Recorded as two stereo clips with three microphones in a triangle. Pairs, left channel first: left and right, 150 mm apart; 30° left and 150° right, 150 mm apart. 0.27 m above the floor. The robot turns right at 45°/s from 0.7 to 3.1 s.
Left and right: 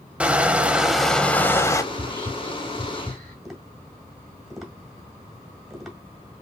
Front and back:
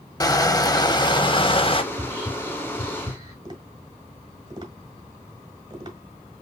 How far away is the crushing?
About 0.6 m.